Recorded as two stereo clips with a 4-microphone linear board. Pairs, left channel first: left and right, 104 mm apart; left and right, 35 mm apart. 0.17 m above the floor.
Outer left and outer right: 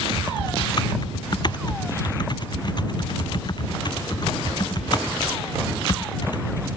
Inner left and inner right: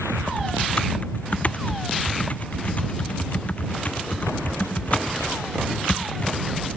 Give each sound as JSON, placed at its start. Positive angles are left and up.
{"t": 0.2, "sound": "typing on a keyboard", "side_deg": 45}